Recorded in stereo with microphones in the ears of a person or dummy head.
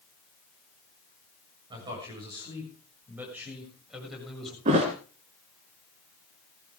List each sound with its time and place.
1.7 s a man speaking: 30° right (ahead or behind), 7 m; by 4.5 s centre (ahead or behind), 7.5 m
4.7 s a thud: 40° right (ahead or behind), 2.5 m